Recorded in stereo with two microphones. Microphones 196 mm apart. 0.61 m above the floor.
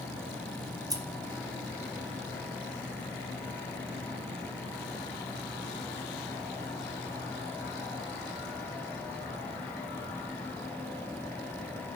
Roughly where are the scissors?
Centre.